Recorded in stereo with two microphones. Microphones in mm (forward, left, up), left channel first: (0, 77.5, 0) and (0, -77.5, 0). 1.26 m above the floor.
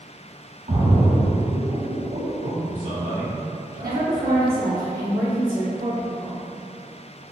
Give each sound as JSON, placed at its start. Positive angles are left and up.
{"t": 0.7, "sound": "a splash", "side_deg": -50, "distance_m": 0.8}
{"t": 2.4, "sound": "a man speaking", "side_deg": -55, "distance_m": 1.9}
{"t": 3.8, "sound": "a woman speaking", "side_deg": -75, "distance_m": 0.7}